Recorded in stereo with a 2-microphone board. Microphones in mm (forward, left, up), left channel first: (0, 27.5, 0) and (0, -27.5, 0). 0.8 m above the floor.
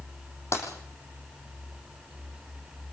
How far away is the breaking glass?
About 6 m.